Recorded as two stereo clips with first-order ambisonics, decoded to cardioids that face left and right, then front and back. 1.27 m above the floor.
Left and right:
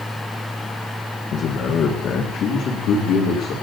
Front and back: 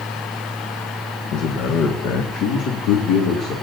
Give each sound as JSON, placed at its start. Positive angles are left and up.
{"t": 1.3, "sound": "a man speaking", "azimuth_deg": 40, "distance_m": 1.5}